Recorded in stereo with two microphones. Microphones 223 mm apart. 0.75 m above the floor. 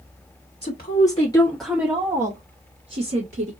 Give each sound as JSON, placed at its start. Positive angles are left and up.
{"t": 0.6, "sound": "a woman speaking", "side_deg": 50, "distance_m": 1.4}